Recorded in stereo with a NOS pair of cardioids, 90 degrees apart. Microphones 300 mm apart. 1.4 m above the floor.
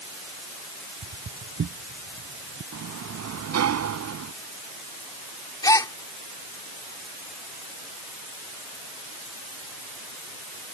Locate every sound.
1.0 s footsteps: 40° right; by 2.6 s 50° right
2.7 s a sliding door: 60° right
5.6 s a gasp: 10° left